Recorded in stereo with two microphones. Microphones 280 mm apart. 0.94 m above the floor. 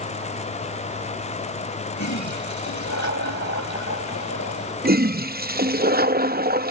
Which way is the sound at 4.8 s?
35° right (ahead or behind).